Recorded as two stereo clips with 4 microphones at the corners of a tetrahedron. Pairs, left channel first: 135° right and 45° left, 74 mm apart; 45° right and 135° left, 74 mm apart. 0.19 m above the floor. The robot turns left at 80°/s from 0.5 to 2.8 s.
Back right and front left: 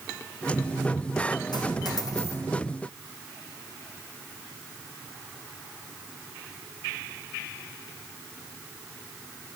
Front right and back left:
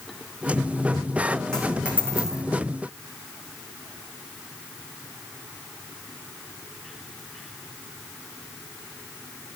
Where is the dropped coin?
125° right, 2.5 m; by 2.4 s 165° left, 2.5 m.